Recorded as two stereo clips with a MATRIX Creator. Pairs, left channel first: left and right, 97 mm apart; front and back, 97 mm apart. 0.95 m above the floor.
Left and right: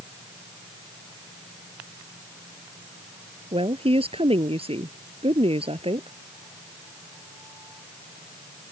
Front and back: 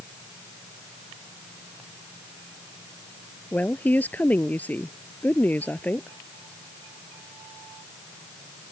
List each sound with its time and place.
3.5 s a woman speaking: 75° right